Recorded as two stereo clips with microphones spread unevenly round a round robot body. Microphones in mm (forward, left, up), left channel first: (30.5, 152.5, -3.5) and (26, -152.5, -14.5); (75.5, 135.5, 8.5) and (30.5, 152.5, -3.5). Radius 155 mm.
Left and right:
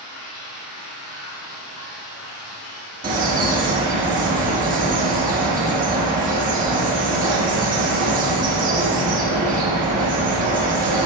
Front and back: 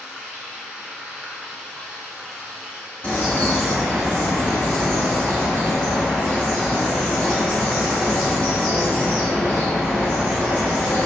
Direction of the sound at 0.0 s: 75° left.